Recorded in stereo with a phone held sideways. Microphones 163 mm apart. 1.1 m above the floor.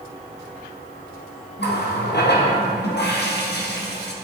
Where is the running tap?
85° left, 0.9 m.